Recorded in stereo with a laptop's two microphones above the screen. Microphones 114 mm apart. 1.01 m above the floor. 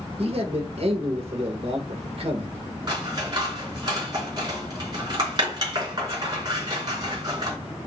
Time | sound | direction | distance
0.2 | a man speaking | 60° right (ahead or behind) | 1.1 m
2.9 | scissors | 40° right (ahead or behind) | 2.5 m